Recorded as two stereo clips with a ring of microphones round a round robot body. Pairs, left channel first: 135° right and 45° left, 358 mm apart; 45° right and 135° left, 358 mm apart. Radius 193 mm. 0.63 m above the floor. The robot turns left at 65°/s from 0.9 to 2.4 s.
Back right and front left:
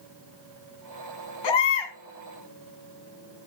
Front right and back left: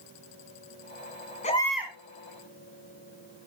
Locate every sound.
1.4 s a baby crying: 115° right, 3.5 m; by 1.9 s 150° right, 3.5 m